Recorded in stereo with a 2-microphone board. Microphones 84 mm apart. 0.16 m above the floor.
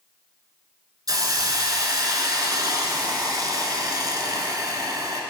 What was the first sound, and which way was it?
A hiss, 50° right (ahead or behind).